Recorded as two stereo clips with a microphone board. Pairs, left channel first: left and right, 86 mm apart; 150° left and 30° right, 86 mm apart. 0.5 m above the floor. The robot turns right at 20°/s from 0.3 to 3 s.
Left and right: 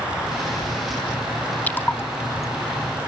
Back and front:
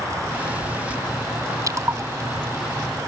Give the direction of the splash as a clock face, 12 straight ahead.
11 o'clock.